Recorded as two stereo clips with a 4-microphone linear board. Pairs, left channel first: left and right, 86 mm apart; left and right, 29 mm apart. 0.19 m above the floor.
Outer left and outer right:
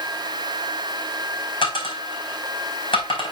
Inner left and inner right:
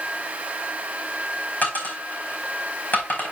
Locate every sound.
1.6 s a dropped coin: 75° left (ahead or behind), 4 m